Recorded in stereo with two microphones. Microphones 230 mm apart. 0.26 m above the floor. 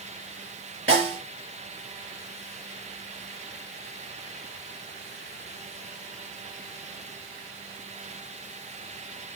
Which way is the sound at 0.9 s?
60° right (ahead or behind).